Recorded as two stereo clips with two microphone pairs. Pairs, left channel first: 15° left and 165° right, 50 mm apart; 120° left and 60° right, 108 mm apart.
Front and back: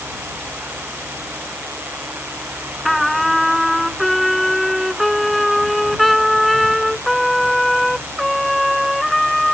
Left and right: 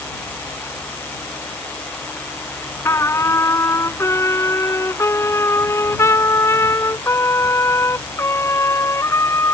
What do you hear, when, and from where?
2.9 s a trumpet: 105° left